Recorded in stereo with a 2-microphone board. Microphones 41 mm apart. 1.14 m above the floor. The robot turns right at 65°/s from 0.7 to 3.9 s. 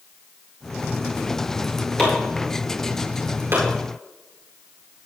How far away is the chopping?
About 9 m.